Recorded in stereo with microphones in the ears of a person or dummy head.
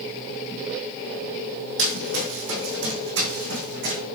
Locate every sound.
1.8 s running footsteps: 70° right (ahead or behind), 3 m; by 4.0 s 60° right (ahead or behind), 5 m